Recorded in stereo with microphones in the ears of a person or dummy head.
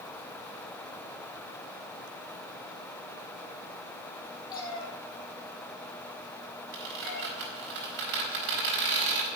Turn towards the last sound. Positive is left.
turn(degrees=-65)  # may be behind; listen again after turning